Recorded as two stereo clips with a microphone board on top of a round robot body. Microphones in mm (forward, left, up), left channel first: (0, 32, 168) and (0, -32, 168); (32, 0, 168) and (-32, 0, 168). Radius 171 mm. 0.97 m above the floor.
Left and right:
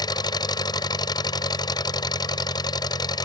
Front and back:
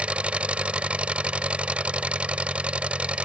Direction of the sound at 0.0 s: 105° left.